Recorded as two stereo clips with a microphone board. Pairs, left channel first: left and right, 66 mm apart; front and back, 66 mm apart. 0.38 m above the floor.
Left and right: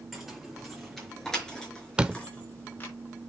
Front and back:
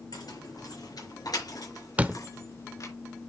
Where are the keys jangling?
5° right, 6.5 m; by 2.9 s 30° left, 4 m.